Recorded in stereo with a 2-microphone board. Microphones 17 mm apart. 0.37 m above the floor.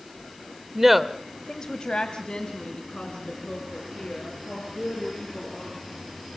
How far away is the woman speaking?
About 0.9 m.